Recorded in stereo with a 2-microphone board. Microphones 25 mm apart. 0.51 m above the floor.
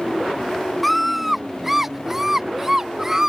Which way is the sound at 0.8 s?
5° left (ahead or behind).